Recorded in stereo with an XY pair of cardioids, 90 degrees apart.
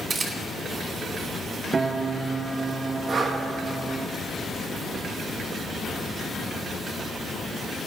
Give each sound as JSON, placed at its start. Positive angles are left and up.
{"t": 0.1, "sound": "a camera shutter", "azimuth_deg": -50, "distance_m": 2.5}
{"t": 1.7, "sound": "a piano", "azimuth_deg": -40, "distance_m": 0.7}
{"t": 3.1, "sound": "breathing", "azimuth_deg": -55, "distance_m": 1.8}